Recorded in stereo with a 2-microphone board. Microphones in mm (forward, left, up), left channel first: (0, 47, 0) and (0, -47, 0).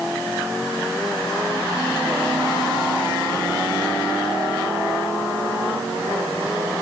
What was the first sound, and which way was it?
Only background noise.